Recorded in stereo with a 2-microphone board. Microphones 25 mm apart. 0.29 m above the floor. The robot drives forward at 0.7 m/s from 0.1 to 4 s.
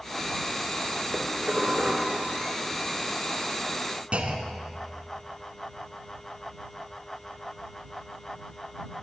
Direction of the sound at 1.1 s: 45° right (ahead or behind).